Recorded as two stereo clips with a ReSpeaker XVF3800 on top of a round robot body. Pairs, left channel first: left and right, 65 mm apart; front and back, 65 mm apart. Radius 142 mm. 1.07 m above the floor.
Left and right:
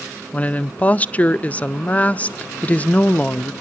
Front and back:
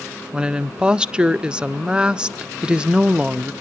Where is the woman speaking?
125° left, 0.7 m.